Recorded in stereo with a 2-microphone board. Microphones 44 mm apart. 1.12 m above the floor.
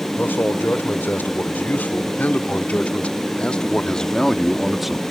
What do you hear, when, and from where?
0.2 s a man speaking: 55° left (ahead or behind); by 5.0 s 5° right (ahead or behind)